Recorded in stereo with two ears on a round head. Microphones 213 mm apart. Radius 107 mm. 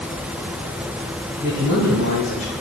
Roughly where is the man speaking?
Left.